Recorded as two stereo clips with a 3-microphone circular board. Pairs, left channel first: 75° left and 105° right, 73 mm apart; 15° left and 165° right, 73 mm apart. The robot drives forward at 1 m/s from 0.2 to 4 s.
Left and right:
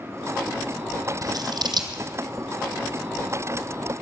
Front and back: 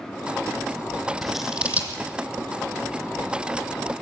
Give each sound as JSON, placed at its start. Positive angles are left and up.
{"t": 1.2, "sound": "scissors", "azimuth_deg": -75, "distance_m": 1.5}